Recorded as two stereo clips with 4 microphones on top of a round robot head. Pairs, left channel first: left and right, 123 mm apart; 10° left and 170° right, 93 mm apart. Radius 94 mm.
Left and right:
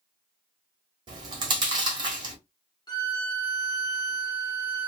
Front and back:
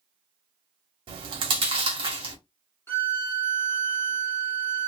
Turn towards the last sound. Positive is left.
turn(degrees=60)